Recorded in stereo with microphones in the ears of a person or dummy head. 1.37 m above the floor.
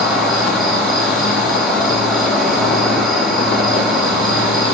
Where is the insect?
Centre (ahead or behind), 3 m.